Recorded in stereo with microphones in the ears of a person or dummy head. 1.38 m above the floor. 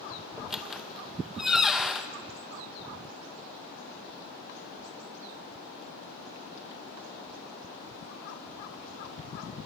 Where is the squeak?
5° right (ahead or behind), 0.7 m.